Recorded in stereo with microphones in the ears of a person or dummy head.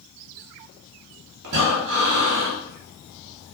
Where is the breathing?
50° right (ahead or behind), 0.7 m.